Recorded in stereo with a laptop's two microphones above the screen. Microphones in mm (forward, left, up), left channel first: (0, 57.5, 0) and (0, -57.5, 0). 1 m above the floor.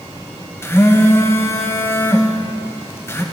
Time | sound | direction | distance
0.6 | a phone buzzing | 20° left (ahead or behind) | 0.7 m